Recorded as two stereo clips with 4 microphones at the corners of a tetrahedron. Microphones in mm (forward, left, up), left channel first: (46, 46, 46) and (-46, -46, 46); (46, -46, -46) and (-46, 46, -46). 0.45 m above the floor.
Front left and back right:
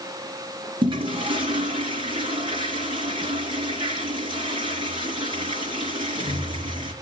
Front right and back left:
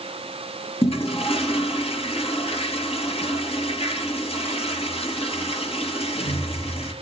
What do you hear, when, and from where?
0.8 s a toilet flushing: 85° right, 3.5 m